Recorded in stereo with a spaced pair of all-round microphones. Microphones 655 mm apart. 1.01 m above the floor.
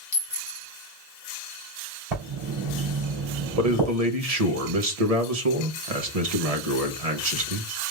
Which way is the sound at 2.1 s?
70° right (ahead or behind).